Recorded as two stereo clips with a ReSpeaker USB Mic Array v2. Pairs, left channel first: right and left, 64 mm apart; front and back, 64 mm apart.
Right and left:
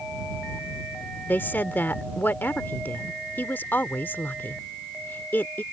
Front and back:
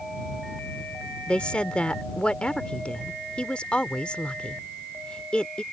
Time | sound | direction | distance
1.3 | a woman speaking | 60° right | ?